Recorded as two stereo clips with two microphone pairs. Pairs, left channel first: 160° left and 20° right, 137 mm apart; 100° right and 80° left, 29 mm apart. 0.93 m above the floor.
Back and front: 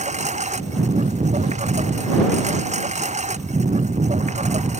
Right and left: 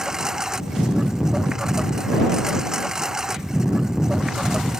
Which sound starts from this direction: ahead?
A lawn mower, at 0.0 s.